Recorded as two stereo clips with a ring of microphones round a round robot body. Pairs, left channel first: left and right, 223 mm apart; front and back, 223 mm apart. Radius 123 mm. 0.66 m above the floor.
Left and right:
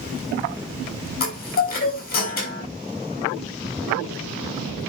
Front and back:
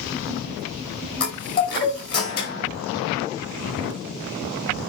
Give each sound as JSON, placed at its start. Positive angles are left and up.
{"t": 1.2, "sound": "a chime", "azimuth_deg": 40, "distance_m": 5.0}